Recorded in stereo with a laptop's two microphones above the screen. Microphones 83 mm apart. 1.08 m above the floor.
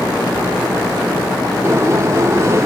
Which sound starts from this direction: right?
A sliding door, at 1.6 s.